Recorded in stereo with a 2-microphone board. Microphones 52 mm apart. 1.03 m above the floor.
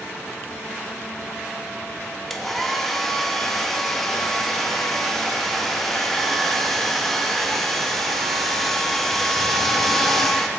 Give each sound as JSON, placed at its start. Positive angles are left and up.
{"t": 2.3, "sound": "a hair dryer", "side_deg": 5, "distance_m": 0.5}